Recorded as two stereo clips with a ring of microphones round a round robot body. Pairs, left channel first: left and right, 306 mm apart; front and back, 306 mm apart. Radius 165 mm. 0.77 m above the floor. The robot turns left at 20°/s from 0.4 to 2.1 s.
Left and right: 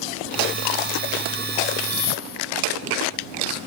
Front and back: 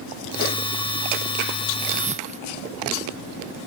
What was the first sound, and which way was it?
A whoosh, 115° left.